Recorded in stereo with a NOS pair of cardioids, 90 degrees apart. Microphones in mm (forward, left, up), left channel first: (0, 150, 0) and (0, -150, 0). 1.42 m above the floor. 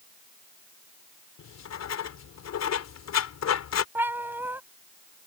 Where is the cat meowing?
5° right.